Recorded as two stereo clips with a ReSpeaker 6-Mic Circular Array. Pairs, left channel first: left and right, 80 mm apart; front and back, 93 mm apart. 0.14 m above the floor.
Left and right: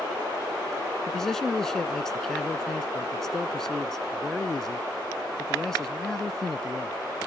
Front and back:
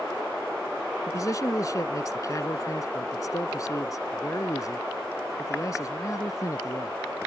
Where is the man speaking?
10° left.